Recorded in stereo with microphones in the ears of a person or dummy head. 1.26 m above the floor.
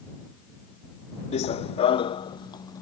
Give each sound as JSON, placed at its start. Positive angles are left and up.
{"t": 1.3, "sound": "running footsteps", "side_deg": 40}